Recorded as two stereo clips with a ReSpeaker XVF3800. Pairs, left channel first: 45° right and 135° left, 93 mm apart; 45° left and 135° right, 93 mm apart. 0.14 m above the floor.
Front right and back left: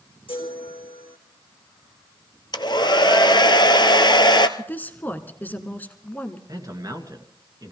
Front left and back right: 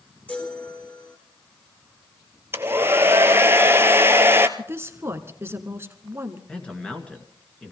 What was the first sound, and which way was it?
A chime, 30° right.